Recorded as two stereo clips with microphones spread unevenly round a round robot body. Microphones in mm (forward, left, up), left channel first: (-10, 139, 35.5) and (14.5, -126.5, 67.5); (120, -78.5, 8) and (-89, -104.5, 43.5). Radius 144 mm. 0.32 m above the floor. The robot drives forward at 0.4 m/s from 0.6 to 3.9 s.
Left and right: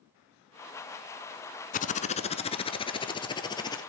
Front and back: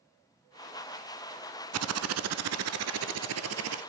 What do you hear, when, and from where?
1.7 s typing on a keyboard: 160° left, 0.5 m; by 3.8 s 170° left, 1.3 m